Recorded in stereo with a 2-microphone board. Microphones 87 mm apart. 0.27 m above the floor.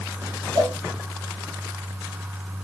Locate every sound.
0.6 s a cowbell: 70° right (ahead or behind), 4.5 m